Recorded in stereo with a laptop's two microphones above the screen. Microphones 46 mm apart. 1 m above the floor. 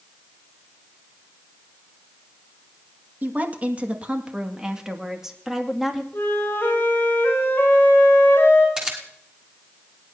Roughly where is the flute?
Left.